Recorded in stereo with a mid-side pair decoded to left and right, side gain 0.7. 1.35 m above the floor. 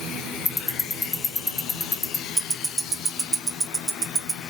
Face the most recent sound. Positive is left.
turn(degrees=-25)